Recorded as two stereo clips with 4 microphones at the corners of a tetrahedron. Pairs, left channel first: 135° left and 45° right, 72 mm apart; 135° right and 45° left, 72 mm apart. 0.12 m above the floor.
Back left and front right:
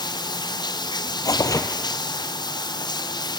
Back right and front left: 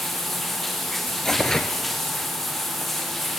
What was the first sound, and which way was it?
Running water, 140° left.